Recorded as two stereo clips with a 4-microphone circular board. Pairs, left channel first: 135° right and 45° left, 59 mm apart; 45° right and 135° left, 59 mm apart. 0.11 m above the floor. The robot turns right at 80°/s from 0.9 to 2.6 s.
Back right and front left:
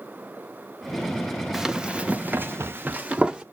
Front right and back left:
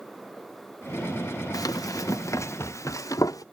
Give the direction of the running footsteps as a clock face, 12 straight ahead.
1 o'clock.